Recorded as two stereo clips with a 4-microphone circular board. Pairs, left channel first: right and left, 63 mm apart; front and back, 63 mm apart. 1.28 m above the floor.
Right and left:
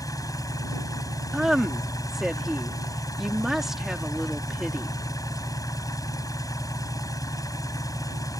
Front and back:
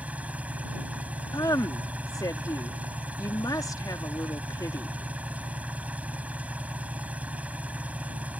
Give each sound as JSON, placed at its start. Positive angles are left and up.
{"t": 0.0, "sound": "an engine running", "azimuth_deg": -115}
{"t": 1.3, "sound": "a woman speaking", "azimuth_deg": 5}